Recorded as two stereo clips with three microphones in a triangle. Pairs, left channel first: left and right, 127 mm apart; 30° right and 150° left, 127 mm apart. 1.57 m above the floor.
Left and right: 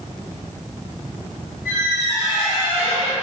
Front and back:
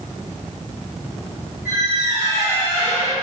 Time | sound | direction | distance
1.6 | a squeak | 175° right | 1.4 m